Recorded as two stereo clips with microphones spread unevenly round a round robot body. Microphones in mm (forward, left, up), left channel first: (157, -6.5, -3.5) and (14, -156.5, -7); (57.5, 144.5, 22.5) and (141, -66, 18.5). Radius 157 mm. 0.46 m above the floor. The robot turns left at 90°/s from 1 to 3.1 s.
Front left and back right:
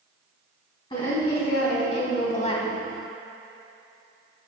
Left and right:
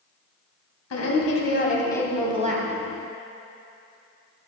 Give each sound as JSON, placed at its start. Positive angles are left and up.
{"t": 0.9, "sound": "a woman speaking", "azimuth_deg": 120, "distance_m": 2.5}